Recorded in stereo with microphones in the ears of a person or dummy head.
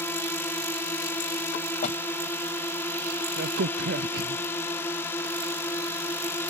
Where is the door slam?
45° left (ahead or behind).